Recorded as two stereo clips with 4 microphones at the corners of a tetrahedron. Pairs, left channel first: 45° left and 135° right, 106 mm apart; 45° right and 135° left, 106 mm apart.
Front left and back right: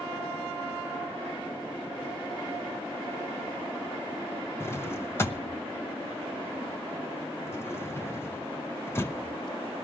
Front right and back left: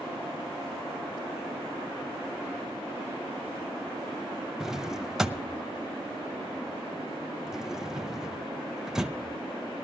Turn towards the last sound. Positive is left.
turn(degrees=55)